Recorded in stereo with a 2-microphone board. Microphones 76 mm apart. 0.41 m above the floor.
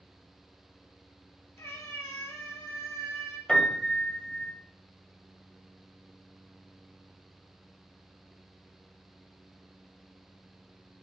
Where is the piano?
15° left (ahead or behind), 1.9 m.